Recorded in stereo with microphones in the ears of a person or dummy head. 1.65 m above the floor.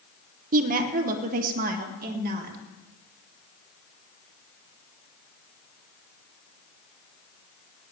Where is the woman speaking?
45° right (ahead or behind), 1.0 m; by 2.6 s 50° right (ahead or behind), 2 m.